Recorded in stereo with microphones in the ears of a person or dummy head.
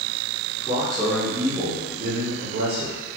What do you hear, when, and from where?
0.6 s a man speaking: 15° left (ahead or behind), 1.1 m; by 3.0 s 65° right (ahead or behind), 1.1 m